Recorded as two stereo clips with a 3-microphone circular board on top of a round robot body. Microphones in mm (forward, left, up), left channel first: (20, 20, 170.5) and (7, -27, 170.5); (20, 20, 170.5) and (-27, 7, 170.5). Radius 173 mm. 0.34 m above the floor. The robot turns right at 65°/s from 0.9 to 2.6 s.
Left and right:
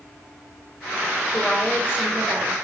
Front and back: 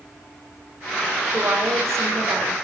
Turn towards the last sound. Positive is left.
turn(degrees=-130)